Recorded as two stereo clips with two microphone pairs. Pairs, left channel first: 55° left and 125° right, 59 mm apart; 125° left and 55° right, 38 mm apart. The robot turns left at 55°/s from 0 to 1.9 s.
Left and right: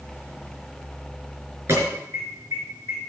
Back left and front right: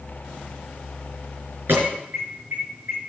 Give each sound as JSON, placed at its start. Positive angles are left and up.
{"t": 1.7, "sound": "an alarm", "azimuth_deg": -80, "distance_m": 5.0}